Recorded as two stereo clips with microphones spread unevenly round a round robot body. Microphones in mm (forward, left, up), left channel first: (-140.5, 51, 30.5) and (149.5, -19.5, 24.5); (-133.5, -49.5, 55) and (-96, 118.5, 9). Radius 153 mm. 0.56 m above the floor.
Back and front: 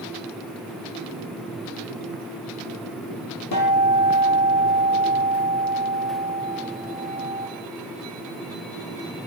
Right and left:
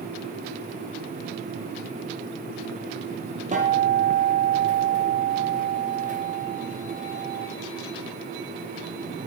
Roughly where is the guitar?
Behind left.